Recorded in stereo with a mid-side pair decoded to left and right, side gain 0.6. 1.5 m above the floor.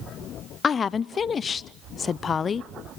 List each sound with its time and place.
0.6 s a woman speaking: 35° left, 0.5 m